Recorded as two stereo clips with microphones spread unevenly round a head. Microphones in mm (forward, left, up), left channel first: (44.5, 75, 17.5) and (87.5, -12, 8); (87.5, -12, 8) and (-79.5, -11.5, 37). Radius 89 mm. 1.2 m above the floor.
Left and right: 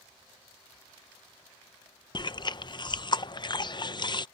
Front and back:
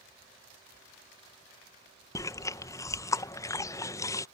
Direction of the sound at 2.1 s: 70° left.